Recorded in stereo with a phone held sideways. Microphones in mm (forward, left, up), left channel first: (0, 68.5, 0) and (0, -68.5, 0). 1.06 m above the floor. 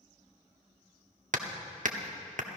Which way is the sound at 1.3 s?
70° right (ahead or behind).